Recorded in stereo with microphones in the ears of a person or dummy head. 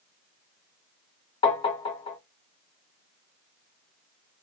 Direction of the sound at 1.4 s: 30° left (ahead or behind).